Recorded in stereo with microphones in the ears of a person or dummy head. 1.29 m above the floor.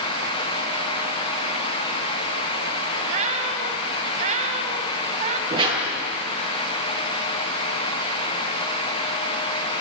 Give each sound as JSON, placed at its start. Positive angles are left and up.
{"t": 3.1, "sound": "a cat meowing", "side_deg": -45, "distance_m": 2.5}
{"t": 5.5, "sound": "a whoosh", "side_deg": -30, "distance_m": 8.0}